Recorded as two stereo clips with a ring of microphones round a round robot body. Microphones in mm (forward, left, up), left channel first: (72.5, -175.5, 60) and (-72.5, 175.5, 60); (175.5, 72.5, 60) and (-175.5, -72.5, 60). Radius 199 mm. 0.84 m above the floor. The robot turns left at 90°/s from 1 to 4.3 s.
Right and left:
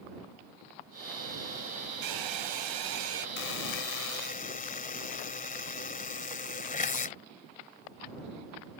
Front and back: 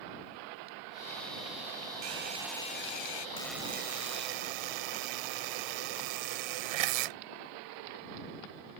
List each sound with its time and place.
2.0 s a hair dryer: 155° left; by 3.3 s 45° left
3.4 s a buzzer: 55° right; by 7.2 s 140° right